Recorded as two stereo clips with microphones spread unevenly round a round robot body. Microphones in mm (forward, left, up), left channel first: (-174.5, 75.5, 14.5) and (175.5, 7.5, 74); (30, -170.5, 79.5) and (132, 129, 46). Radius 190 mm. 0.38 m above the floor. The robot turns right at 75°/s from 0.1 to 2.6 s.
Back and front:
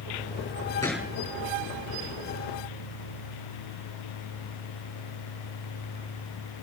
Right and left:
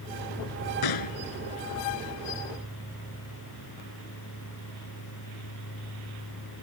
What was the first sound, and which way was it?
A gunshot, 110° right.